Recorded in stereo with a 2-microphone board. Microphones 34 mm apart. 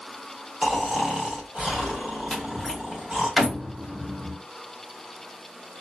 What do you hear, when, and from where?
0.6 s snoring: 20° right (ahead or behind), 1.1 m
2.3 s a door slam: 5° right (ahead or behind), 1.2 m